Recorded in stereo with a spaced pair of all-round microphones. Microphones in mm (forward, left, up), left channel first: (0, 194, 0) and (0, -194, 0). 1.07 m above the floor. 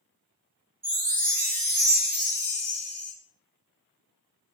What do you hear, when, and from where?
0.8 s a chime: 65° right (ahead or behind), 1.1 m